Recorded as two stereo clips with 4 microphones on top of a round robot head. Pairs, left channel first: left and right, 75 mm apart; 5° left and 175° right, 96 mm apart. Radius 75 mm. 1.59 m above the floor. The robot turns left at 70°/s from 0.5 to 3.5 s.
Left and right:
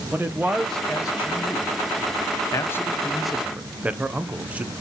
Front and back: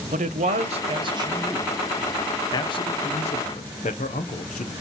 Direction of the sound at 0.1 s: 170° right.